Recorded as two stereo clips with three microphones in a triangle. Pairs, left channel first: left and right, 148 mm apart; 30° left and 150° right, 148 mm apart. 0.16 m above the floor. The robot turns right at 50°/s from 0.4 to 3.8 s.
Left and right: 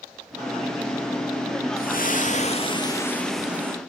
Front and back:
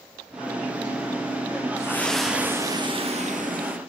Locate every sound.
1.8 s a splash: 100° left, 1.8 m; by 3.8 s 160° right, 1.8 m